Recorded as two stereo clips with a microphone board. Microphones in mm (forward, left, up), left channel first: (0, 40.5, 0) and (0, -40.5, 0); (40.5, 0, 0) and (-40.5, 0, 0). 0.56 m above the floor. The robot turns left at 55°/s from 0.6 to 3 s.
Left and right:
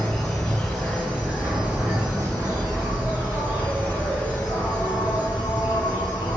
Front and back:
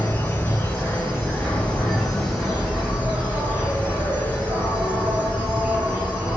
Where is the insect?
Straight ahead, 1.4 m; by 6.4 s 130° right, 1.4 m.